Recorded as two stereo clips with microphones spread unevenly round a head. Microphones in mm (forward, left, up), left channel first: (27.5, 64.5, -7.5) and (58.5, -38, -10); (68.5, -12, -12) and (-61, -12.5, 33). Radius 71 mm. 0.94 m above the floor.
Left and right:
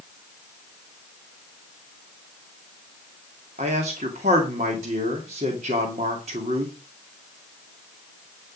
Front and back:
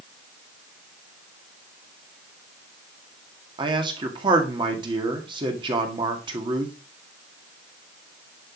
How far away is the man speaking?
About 2.0 m.